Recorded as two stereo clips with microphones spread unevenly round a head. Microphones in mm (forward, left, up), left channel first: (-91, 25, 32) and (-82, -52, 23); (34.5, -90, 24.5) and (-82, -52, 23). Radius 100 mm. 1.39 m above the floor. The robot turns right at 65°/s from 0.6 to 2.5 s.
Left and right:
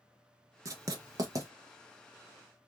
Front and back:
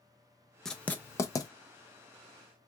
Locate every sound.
0.7 s writing: 100° right, 0.6 m; by 1.5 s 45° right, 0.6 m